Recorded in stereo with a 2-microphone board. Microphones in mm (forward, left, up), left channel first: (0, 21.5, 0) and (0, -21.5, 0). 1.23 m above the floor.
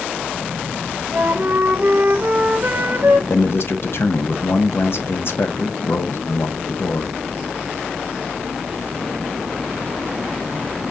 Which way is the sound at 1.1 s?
50° right (ahead or behind).